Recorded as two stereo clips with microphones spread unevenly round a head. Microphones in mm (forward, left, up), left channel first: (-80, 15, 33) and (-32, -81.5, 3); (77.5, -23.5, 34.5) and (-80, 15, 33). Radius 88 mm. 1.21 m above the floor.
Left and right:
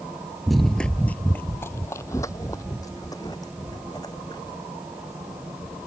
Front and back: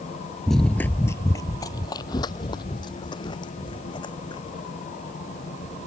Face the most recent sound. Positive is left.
turn(degrees=50)